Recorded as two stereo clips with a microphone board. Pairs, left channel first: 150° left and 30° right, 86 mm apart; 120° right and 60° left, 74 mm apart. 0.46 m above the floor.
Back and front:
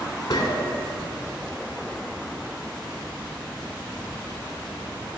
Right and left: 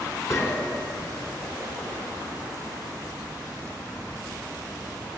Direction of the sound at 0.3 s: 165° right.